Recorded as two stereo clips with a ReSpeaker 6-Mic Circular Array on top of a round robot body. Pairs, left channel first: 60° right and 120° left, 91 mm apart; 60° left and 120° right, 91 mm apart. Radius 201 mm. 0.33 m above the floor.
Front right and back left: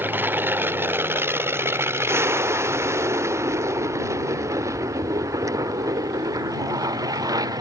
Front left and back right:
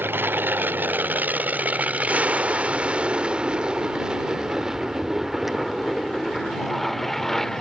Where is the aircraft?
Straight behind; by 7.6 s 145° left.